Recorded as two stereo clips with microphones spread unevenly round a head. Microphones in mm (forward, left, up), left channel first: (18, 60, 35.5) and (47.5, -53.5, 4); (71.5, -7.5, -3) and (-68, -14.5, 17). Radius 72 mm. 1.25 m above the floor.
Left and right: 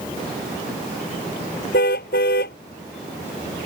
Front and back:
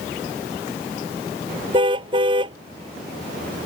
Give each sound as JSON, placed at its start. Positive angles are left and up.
{"t": 1.7, "sound": "a car horn", "azimuth_deg": 125}